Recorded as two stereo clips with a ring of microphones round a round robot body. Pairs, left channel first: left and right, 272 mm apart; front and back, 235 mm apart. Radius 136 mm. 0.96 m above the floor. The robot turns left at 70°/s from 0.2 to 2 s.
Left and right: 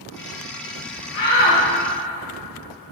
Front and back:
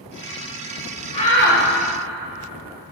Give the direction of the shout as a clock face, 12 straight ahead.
10 o'clock.